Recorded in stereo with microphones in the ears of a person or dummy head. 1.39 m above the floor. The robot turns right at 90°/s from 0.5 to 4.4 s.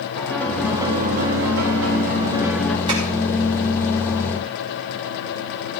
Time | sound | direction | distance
0.1 | a piano | 170° left | 1.5 m
2.9 | tapping | 30° right (ahead or behind) | 4.5 m